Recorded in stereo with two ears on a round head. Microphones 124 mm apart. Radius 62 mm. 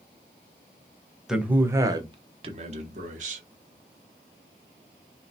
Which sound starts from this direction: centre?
A man speaking, at 1.3 s.